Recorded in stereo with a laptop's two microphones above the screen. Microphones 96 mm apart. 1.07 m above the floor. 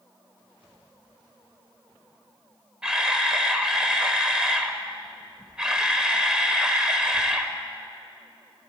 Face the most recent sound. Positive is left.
turn(degrees=-5)  # may be behind; listen again after turning